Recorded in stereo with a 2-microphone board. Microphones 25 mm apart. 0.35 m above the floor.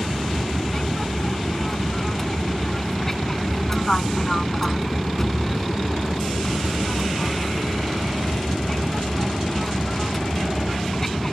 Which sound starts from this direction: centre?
An aircraft, at 0.0 s.